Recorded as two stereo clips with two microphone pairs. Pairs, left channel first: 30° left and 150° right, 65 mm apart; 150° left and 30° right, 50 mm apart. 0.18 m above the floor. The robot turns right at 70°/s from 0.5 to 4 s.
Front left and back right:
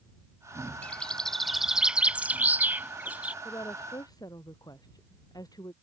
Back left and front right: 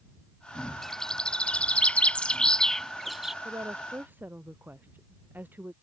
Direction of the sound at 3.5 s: 20° right.